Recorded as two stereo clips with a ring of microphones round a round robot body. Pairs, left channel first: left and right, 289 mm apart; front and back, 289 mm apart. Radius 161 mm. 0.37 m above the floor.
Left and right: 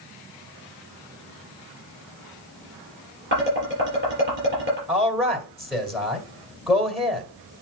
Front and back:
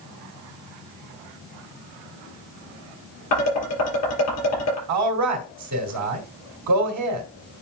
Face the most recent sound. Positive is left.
turn(degrees=180)